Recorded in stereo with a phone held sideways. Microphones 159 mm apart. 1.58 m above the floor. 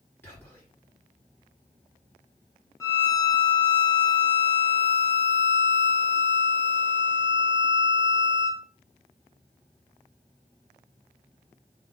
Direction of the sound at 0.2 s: 15° left (ahead or behind).